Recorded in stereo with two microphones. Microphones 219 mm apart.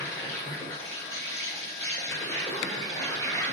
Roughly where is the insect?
Centre.